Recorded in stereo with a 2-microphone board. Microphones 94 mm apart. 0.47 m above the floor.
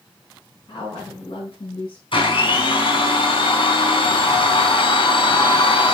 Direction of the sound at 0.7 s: 55° left (ahead or behind).